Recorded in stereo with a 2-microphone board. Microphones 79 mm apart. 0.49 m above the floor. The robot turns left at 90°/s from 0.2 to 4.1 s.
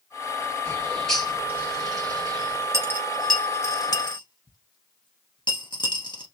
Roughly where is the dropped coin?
Right.